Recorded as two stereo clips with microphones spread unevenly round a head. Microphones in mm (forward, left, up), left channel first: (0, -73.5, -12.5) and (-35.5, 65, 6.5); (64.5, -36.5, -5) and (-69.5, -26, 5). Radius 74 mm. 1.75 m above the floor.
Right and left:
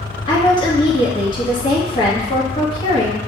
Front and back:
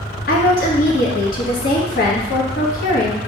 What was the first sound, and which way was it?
A woman speaking, 15° right.